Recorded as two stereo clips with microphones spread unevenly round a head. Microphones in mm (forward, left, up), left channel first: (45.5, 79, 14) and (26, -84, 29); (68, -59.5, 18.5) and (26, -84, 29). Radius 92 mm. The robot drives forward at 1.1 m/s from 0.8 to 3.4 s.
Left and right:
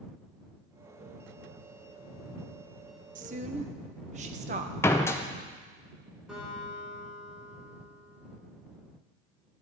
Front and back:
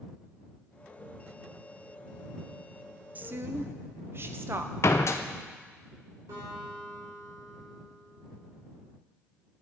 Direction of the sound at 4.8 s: 5° left.